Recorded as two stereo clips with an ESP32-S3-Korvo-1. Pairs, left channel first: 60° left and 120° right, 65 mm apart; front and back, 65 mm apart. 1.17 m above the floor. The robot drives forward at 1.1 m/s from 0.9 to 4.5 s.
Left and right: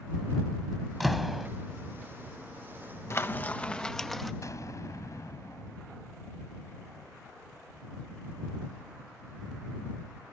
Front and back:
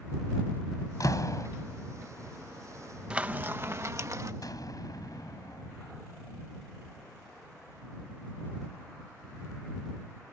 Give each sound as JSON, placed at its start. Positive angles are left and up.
{"t": 1.0, "sound": "a door slam", "azimuth_deg": -30}
{"t": 3.1, "sound": "frying", "azimuth_deg": 105}
{"t": 4.4, "sound": "an explosion", "azimuth_deg": 25}